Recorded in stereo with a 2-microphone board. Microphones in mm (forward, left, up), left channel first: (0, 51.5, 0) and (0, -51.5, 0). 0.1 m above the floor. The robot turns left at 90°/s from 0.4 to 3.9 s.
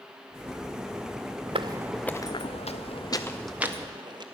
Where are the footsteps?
60° right (ahead or behind), 0.7 m; by 4.2 s 45° right (ahead or behind), 1.7 m.